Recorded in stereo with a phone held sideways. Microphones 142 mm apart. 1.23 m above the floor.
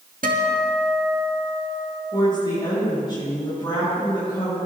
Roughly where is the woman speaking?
Left.